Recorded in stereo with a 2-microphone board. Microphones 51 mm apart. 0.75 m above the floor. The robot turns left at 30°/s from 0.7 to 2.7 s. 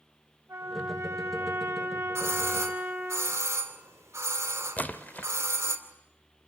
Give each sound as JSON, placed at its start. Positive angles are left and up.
{"t": 0.5, "sound": "a trumpet", "azimuth_deg": -95, "distance_m": 5.0}
{"t": 2.1, "sound": "a doorbell", "side_deg": -70, "distance_m": 2.5}
{"t": 4.8, "sound": "a splash", "side_deg": 30, "distance_m": 0.9}